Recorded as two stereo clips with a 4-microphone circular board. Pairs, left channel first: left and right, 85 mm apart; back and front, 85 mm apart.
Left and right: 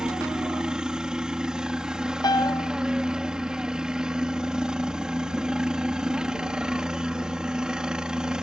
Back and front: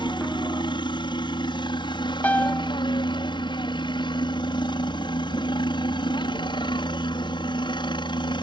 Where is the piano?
115° left.